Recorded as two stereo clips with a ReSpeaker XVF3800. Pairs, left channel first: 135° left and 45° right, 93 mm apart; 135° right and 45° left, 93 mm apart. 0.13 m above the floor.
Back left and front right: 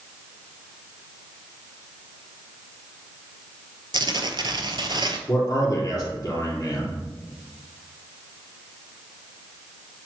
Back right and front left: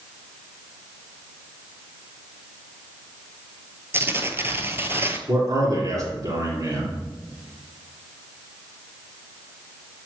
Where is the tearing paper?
15° right, 0.6 m.